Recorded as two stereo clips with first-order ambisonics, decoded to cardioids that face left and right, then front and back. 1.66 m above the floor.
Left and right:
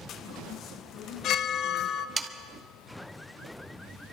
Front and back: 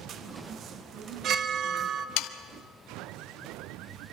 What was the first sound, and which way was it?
A chime, 130° left.